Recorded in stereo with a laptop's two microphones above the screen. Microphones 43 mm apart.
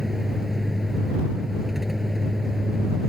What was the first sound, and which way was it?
A vehicle, 10° right (ahead or behind).